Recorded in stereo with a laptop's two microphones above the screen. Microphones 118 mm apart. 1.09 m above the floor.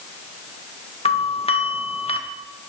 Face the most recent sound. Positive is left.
turn(degrees=55)  # may be behind; listen again after turning